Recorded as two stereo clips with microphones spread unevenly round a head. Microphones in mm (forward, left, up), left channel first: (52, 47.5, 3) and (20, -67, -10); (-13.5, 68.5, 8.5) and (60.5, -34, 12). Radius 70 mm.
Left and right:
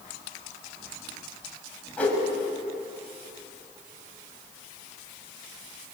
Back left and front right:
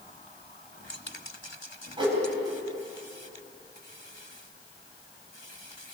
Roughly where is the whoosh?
Ahead.